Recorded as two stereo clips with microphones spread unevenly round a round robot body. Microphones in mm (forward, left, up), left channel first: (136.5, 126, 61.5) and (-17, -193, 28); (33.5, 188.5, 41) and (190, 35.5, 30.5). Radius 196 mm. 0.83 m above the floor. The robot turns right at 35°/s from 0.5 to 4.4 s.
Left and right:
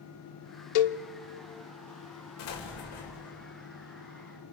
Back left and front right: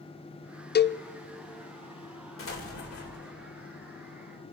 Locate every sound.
0.8 s a cowbell: 80° left, 0.6 m; by 1.0 s 90° left, 0.6 m
2.4 s an explosion: 115° left, 2.5 m; by 3.4 s 150° left, 2.5 m